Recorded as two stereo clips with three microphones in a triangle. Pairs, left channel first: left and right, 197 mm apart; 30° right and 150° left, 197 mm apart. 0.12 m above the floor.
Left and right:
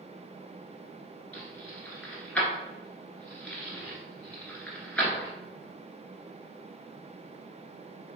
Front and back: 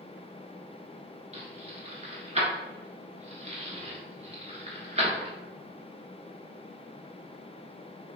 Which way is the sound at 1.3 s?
170° left.